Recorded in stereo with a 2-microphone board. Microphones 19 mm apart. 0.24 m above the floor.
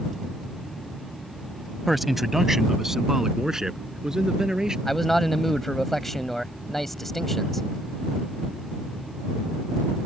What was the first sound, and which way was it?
A man speaking, centre (ahead or behind).